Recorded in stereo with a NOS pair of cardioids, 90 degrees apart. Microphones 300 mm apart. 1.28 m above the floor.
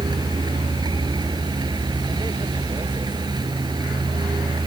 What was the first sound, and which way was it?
A vehicle, 15° right.